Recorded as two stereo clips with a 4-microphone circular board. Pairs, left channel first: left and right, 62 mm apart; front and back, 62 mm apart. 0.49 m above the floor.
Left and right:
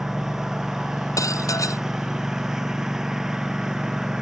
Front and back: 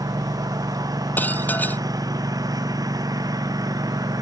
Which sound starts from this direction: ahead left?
Dishes clattering, at 1.2 s.